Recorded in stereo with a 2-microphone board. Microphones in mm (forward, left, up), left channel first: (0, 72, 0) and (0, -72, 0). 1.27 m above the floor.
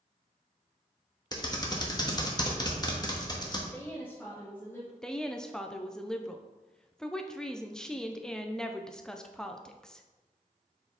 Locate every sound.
1.3 s typing on a keyboard: 30° left (ahead or behind), 1.0 m
3.7 s a woman speaking: 15° left (ahead or behind), 1.6 m
5.0 s a woman speaking: 5° left (ahead or behind), 0.6 m